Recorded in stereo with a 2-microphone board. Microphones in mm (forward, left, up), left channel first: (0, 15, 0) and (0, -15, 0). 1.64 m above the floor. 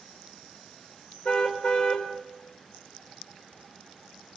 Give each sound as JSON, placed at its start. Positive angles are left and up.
{"t": 1.2, "sound": "a car horn", "side_deg": 30, "distance_m": 3.5}